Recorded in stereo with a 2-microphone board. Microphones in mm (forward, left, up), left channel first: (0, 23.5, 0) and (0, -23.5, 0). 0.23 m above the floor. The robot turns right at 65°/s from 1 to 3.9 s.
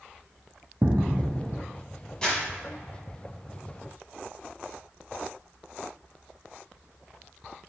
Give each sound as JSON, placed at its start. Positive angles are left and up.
{"t": 0.8, "sound": "footsteps", "azimuth_deg": -45, "distance_m": 0.6}
{"t": 2.2, "sound": "crumpling", "side_deg": 20, "distance_m": 1.4}